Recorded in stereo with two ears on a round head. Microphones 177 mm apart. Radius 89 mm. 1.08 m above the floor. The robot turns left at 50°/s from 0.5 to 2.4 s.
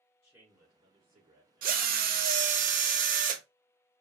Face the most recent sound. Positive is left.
turn(degrees=-110)